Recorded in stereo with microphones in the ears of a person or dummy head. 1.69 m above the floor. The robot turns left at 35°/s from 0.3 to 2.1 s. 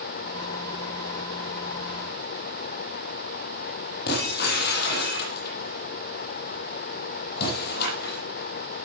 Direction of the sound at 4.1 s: 60° left (ahead or behind).